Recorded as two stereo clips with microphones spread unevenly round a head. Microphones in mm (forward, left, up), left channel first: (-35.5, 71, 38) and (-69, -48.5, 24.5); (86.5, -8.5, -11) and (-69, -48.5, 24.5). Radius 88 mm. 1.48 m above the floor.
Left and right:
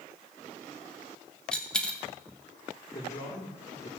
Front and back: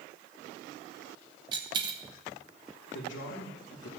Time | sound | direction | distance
1.5 | a dropped coin | 150° left | 1.2 m
2.9 | a man speaking | 20° left | 1.6 m